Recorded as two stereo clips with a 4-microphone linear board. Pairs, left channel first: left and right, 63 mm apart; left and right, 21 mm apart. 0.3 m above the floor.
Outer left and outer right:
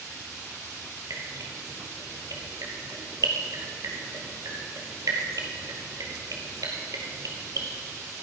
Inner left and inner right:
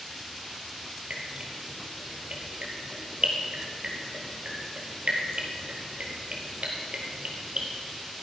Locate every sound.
1.1 s dripping: 65° right (ahead or behind), 3 m